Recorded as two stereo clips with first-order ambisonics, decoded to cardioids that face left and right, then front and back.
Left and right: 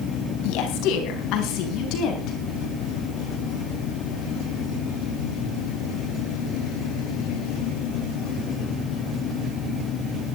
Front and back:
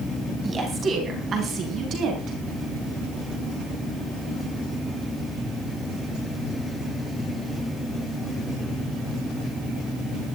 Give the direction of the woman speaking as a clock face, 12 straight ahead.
8 o'clock.